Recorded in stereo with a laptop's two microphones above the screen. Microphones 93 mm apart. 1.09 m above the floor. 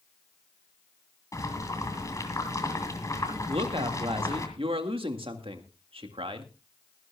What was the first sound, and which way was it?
Boiling, 35° left (ahead or behind).